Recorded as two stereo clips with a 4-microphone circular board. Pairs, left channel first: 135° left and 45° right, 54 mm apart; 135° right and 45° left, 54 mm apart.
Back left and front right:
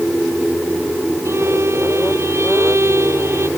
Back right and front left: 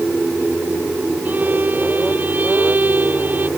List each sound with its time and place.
1.2 s a violin: 10° right